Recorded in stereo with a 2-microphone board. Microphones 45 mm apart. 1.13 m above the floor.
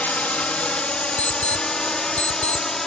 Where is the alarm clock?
40° left (ahead or behind).